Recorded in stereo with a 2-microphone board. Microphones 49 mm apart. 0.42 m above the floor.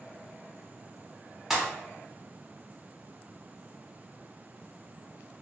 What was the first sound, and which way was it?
A pop, 5° right (ahead or behind).